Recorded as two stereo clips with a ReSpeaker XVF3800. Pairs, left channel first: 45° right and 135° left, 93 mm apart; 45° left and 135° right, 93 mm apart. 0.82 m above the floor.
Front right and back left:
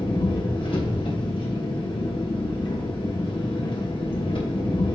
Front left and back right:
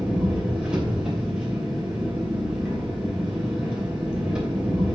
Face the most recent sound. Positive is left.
turn(degrees=-55)